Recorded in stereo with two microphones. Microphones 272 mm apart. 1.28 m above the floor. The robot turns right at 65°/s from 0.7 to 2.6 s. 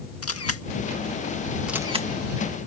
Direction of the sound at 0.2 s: 60° left (ahead or behind).